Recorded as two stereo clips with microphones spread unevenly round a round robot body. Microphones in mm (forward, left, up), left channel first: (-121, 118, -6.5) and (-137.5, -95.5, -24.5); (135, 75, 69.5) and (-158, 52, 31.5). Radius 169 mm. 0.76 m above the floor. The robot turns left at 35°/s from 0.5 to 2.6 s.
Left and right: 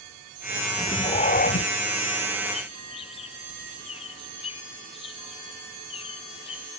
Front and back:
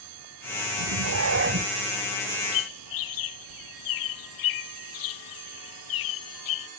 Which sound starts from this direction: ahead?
A bird, at 2.5 s.